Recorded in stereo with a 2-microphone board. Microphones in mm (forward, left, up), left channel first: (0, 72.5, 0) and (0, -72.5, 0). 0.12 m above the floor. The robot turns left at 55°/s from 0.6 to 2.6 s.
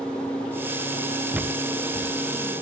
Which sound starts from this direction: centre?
Footsteps, at 1.3 s.